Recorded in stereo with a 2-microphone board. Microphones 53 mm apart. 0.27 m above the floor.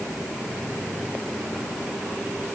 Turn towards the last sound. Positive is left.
No sound to turn to.